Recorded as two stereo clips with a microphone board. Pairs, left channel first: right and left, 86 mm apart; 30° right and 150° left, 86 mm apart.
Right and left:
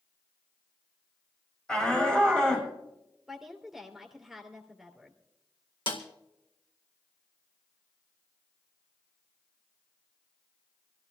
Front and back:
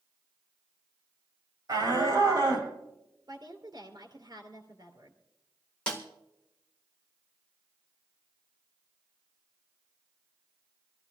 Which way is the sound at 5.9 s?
110° right.